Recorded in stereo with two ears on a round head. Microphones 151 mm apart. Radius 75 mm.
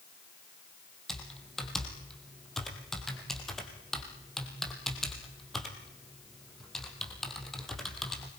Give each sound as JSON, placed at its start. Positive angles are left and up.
{"t": 1.1, "sound": "typing on a keyboard", "side_deg": 5, "distance_m": 3.5}